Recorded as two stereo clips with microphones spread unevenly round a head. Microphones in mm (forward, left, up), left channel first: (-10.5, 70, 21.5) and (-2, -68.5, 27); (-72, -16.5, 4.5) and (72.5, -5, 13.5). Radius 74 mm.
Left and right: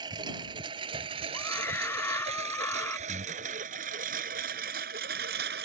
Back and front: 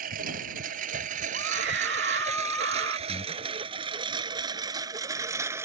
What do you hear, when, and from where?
0.0 s a lawn mower: 25° right; by 5.7 s 65° right
1.3 s a scream: 20° left
3.1 s breathing: 120° right